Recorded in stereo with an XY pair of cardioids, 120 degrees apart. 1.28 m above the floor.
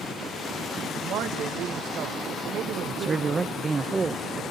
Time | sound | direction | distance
0.9 | a man speaking | 70° right | 1.8 m
2.9 | a man speaking | 25° right | 0.9 m